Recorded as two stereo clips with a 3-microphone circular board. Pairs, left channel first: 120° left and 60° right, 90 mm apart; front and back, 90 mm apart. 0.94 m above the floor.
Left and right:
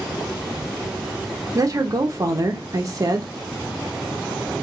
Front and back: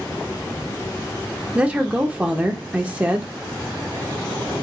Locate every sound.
1.6 s a woman speaking: 105° right, 0.6 m